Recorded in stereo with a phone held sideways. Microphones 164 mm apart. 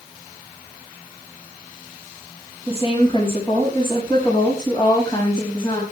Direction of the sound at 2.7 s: 35° left (ahead or behind).